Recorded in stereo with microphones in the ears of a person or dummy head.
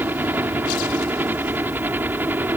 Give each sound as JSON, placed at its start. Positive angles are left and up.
{"t": 0.0, "sound": "a helicopter", "side_deg": -10}